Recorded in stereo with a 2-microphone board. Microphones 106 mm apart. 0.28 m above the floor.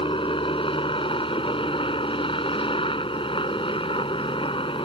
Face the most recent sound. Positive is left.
turn(degrees=65)  # may be behind; listen again after turning